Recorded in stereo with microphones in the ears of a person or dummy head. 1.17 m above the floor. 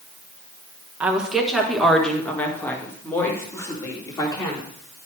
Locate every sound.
1.0 s a woman speaking: 5° right (ahead or behind), 1.2 m; by 4.7 s 25° left (ahead or behind), 3 m